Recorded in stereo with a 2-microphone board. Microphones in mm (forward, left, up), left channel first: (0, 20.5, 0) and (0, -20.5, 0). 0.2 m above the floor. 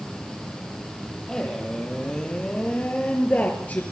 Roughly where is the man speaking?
Centre.